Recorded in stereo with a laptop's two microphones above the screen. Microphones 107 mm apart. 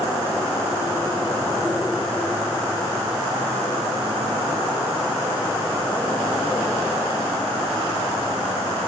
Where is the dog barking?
I don't hear a dog barking.